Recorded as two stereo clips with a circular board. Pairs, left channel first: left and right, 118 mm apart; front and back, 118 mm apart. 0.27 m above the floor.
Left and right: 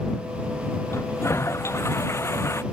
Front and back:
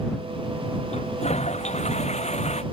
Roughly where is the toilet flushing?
Ahead.